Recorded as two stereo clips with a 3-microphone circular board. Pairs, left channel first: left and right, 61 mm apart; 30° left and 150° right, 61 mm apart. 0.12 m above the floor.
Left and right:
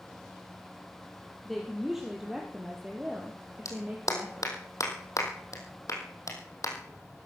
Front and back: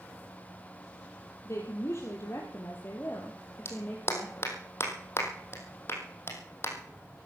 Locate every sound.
1.4 s a woman speaking: straight ahead, 3 m; by 4.5 s 45° right, 3 m
3.6 s a clap: 70° left, 3.5 m